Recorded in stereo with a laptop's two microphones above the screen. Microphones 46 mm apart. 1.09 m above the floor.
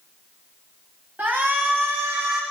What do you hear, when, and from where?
1.2 s a shout: 40° right (ahead or behind), 1.1 m; by 2.4 s 60° right (ahead or behind), 1.3 m